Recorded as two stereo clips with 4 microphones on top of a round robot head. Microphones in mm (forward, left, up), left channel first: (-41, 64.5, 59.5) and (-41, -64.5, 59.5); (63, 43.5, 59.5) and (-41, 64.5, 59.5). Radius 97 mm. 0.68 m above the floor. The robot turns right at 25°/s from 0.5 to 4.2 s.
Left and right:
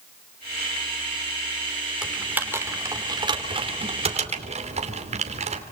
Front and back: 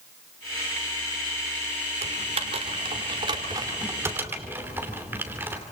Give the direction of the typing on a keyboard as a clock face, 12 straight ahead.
6 o'clock.